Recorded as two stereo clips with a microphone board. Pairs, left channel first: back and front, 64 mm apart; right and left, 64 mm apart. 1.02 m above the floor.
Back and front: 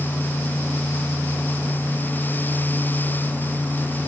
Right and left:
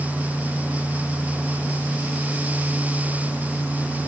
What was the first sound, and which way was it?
Only background noise.